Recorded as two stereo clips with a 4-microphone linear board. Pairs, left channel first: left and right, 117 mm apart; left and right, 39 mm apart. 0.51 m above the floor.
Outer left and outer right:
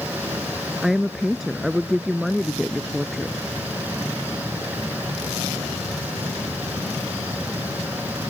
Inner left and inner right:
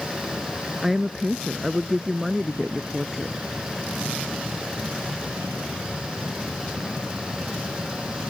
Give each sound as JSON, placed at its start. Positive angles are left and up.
{"t": 0.8, "sound": "a woman speaking", "side_deg": 0}